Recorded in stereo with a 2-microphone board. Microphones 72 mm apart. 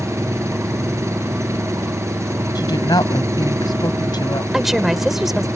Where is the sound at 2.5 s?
80° left.